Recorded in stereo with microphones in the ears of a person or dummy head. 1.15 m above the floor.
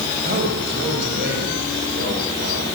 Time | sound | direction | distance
0.2 | a man speaking | 50° right (ahead or behind) | 6 m